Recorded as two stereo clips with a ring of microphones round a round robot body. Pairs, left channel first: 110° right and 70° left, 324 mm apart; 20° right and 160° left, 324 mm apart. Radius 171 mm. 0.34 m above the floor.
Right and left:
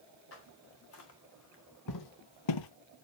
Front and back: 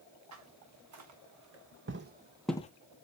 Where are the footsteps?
165° right, 3.5 m; by 2.7 s 85° right, 0.6 m.